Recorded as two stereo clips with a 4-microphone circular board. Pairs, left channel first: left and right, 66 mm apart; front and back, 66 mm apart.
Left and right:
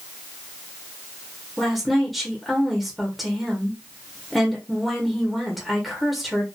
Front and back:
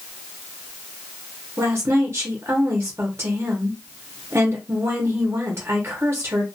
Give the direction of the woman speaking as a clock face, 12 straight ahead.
6 o'clock.